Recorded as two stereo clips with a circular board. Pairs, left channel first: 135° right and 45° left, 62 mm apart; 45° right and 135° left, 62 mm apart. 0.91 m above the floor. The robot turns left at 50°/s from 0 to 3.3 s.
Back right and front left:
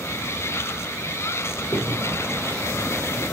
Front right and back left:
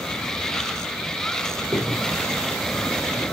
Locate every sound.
1.6 s a crack: 160° left, 5 m; by 2.9 s 95° left, 5 m